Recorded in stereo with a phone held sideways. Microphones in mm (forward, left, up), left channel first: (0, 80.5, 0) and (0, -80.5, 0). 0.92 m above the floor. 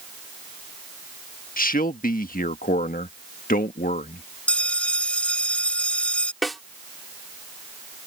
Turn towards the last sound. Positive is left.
turn(degrees=0)  # may be behind; listen again after turning